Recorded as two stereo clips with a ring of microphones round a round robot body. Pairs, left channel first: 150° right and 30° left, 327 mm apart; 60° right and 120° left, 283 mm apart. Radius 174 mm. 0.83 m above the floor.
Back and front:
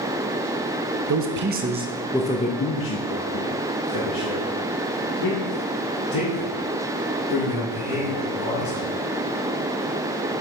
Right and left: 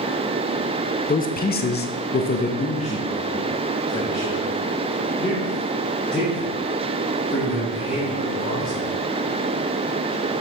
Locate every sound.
1.1 s a man speaking: 5° right, 0.9 m; by 8.9 s 150° right, 4 m